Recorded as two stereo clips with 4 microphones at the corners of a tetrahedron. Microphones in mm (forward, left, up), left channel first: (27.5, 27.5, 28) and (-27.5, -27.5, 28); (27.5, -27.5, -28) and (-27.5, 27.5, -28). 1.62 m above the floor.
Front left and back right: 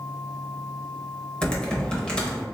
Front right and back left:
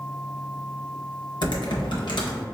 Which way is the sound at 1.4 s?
30° right.